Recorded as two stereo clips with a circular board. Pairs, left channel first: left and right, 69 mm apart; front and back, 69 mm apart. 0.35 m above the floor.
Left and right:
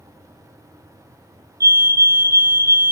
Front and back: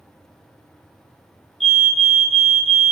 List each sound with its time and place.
1.6 s a fire alarm: 100° right, 3 m